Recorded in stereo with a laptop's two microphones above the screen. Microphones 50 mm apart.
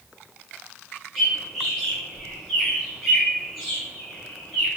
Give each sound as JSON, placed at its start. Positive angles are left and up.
{"t": 1.1, "sound": "a bird", "side_deg": 5, "distance_m": 1.4}